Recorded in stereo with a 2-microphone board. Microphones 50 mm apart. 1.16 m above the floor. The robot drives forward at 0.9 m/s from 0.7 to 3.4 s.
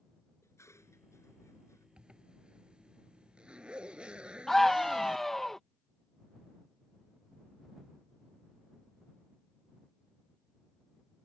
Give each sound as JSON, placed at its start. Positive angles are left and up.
{"t": 0.4, "sound": "dishes clattering", "side_deg": 70}
{"t": 2.0, "sound": "a zipper", "side_deg": -20}
{"t": 4.5, "sound": "a scream", "side_deg": 10}